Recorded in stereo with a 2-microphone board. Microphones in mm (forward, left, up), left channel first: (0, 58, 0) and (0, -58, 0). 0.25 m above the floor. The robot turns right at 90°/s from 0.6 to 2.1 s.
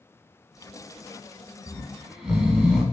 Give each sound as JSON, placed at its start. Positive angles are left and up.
{"t": 1.7, "sound": "snoring", "azimuth_deg": 145, "distance_m": 1.0}